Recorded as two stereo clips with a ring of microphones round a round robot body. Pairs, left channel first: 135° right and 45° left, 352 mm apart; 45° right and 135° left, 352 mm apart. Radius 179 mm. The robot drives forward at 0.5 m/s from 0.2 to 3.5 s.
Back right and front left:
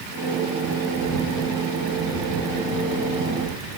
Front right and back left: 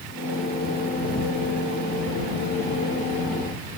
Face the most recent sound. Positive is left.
No sound to turn to.